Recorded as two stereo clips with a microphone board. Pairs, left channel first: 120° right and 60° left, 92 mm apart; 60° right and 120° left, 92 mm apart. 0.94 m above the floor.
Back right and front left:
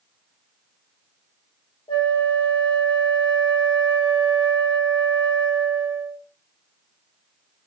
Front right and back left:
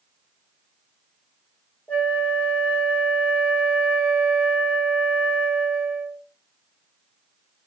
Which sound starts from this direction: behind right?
A flute, at 1.9 s.